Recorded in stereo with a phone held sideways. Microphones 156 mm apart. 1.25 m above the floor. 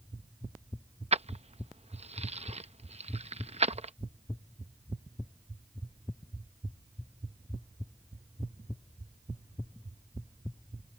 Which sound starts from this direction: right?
Keys jangling, at 1.1 s.